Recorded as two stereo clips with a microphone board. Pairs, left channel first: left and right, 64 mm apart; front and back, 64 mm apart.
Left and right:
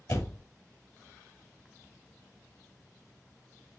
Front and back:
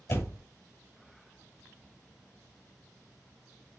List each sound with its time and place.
0.1 s a door slam: 55° left, 2.0 m